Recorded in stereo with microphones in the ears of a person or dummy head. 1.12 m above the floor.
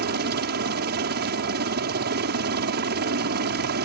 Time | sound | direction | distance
0.0 | a helicopter | 45° right (ahead or behind) | ?